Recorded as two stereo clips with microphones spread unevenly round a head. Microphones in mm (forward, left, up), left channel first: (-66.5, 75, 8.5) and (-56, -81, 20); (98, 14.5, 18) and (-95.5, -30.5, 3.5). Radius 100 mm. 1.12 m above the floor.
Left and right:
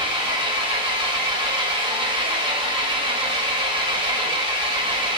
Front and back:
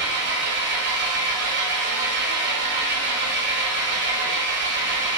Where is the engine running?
140° right, 0.7 m.